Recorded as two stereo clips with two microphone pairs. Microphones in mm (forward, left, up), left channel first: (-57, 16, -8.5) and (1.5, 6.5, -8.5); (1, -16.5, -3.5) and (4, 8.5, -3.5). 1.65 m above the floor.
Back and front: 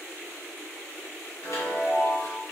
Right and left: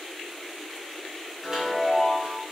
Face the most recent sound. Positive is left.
turn(degrees=145)